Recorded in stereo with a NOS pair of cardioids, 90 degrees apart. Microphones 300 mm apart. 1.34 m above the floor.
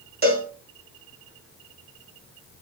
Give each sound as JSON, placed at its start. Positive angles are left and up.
{"t": 0.2, "sound": "a cowbell", "azimuth_deg": -30, "distance_m": 1.1}